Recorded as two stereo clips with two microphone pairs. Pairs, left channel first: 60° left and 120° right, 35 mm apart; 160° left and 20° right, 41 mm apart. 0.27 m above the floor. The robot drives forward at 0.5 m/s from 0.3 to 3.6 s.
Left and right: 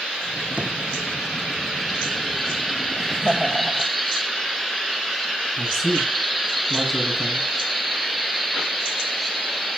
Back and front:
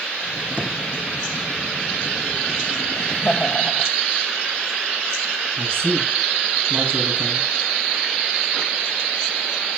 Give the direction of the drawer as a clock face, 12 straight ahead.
3 o'clock.